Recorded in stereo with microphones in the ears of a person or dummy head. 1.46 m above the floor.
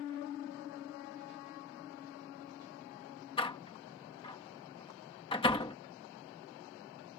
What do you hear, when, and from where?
3.4 s a door slam: 20° left (ahead or behind)